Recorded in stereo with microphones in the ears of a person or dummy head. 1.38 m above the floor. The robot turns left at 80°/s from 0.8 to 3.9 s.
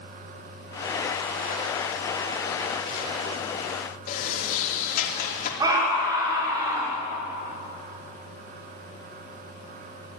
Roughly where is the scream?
Right.